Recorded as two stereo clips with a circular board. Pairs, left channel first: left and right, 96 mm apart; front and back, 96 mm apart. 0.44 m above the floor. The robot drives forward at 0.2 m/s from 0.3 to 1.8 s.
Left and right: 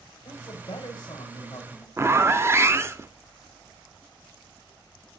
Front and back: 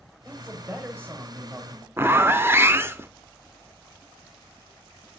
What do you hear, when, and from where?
0.2 s a man speaking: 110° left, 1.7 m; by 1.9 s 120° left, 1.8 m
2.0 s a zipper: 130° right, 0.6 m